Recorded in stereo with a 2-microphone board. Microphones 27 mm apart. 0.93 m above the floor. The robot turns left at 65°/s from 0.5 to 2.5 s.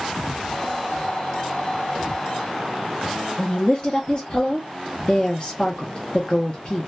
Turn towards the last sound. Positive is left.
turn(degrees=35)  # may be behind; listen again after turning